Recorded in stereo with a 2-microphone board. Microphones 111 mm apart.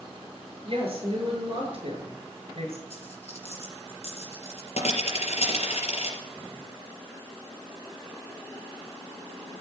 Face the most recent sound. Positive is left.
turn(degrees=75)  # may be behind; listen again after turning